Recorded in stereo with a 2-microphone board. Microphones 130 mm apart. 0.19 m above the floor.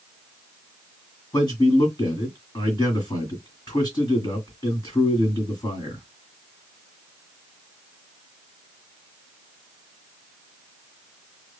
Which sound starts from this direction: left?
A man speaking, at 1.3 s.